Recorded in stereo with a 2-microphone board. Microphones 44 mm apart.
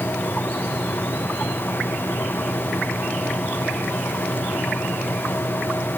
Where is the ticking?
No ticking in this recording.